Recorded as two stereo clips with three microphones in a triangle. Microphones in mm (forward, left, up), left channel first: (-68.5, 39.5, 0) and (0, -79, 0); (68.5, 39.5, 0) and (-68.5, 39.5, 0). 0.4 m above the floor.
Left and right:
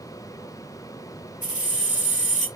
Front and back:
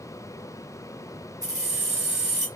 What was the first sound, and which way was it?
Keys jangling, 115° left.